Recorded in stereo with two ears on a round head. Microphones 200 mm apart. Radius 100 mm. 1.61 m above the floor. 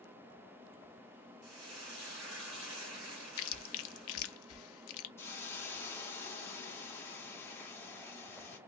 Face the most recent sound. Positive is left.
turn(degrees=10)  # may be behind; listen again after turning